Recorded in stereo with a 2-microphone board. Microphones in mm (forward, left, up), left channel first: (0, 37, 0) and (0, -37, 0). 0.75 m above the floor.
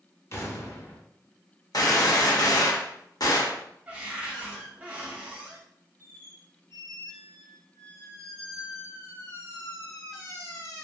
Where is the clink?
No clink in this recording.